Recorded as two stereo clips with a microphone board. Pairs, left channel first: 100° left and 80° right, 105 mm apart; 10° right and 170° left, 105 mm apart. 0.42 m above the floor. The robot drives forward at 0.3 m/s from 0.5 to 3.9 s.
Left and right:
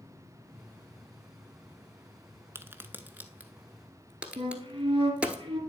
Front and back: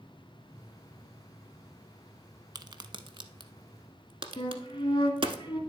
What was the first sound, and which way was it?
A crack, 140° right.